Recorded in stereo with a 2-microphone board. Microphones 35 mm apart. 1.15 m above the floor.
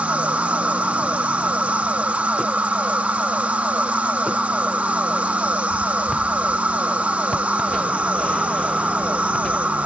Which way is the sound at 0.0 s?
45° right (ahead or behind).